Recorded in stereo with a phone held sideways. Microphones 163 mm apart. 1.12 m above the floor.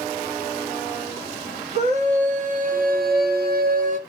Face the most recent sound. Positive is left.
turn(degrees=-45)  # may be behind; listen again after turning